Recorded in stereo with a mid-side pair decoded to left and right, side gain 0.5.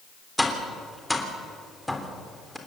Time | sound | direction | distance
0.4 | tapping | 5° left | 3.5 m